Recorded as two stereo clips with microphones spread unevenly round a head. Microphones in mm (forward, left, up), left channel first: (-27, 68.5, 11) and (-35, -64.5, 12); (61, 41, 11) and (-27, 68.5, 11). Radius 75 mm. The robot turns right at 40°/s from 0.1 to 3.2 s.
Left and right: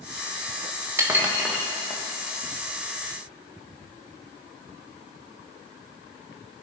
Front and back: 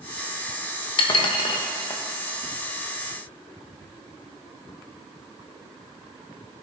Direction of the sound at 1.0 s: 25° right.